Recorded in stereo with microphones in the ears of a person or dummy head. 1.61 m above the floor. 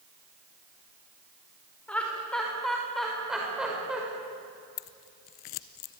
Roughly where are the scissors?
Left.